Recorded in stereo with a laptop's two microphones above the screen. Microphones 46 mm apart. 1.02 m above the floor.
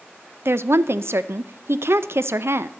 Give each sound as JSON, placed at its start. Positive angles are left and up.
{"t": 0.5, "sound": "a woman speaking", "side_deg": -65, "distance_m": 0.5}